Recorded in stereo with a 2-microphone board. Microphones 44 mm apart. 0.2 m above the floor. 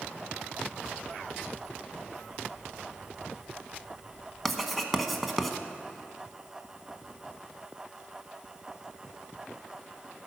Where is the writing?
Centre (ahead or behind), 0.8 m.